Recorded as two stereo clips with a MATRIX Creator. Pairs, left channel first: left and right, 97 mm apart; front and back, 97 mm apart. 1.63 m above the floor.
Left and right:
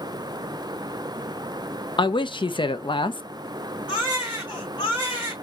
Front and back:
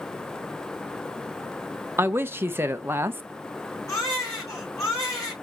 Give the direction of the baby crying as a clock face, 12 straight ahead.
10 o'clock.